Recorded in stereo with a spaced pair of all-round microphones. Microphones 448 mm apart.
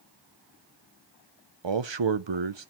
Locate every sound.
1.6 s a man speaking: 75° right (ahead or behind), 0.8 m